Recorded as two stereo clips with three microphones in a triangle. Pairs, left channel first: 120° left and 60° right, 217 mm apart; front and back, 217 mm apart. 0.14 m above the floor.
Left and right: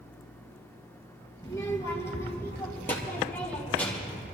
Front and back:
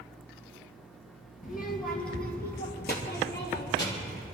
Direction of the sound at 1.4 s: 45° left.